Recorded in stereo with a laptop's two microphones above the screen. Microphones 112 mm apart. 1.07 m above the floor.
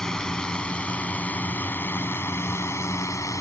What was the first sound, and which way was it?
A drone, 5° left (ahead or behind).